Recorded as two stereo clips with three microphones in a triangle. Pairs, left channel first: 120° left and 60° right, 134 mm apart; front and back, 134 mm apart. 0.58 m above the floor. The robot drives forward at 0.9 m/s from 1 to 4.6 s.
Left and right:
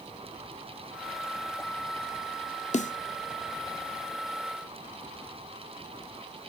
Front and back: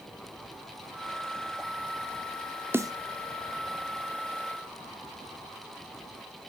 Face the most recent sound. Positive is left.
turn(degrees=165)